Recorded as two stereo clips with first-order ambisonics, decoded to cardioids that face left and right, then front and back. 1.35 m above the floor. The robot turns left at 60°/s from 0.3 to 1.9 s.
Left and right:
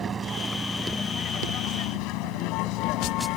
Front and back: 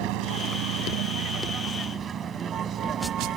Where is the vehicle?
155° right; by 3.4 s 125° left.